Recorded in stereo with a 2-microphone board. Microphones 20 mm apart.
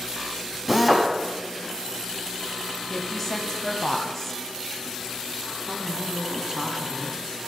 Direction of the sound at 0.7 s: 15° right (ahead or behind).